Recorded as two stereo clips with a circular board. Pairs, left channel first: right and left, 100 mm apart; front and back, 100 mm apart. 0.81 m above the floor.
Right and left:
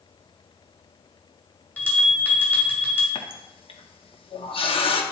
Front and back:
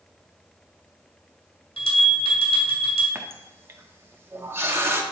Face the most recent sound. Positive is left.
turn(degrees=-115)